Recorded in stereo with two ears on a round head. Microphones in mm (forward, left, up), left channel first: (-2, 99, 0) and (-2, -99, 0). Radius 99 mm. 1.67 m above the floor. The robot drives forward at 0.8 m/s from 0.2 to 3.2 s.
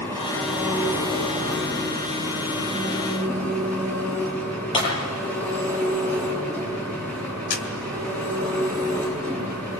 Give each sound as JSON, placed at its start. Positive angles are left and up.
{"t": 0.0, "sound": "an engine running", "side_deg": 10, "distance_m": 5.0}
{"t": 4.7, "sound": "breaking glass", "side_deg": 25, "distance_m": 8.5}
{"t": 7.5, "sound": "a camera shutter", "side_deg": 45, "distance_m": 2.5}